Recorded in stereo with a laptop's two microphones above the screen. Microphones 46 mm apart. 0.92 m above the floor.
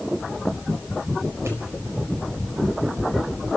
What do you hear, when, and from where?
1.4 s a pop: 80° right, 4.5 m